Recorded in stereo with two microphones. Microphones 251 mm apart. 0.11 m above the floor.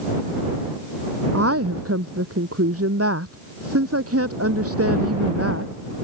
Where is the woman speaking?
65° right (ahead or behind).